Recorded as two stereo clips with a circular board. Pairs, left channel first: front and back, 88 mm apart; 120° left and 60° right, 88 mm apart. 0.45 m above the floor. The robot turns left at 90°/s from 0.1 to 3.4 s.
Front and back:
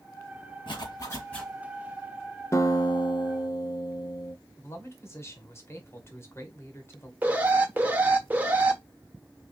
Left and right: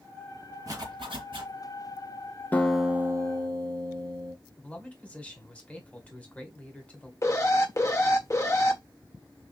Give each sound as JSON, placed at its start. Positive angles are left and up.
{"t": 0.7, "sound": "a zipper", "azimuth_deg": -10, "distance_m": 3.0}
{"t": 2.5, "sound": "a guitar", "azimuth_deg": 50, "distance_m": 0.9}
{"t": 4.6, "sound": "a man speaking", "azimuth_deg": 50, "distance_m": 1.6}
{"t": 7.2, "sound": "an alarm", "azimuth_deg": 125, "distance_m": 1.1}